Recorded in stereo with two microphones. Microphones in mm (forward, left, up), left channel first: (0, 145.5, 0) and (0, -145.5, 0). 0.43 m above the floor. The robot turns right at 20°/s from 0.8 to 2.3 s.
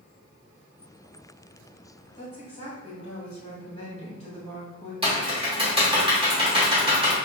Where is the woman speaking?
25° left (ahead or behind), 1.5 m; by 4.9 s 20° left (ahead or behind), 1.5 m.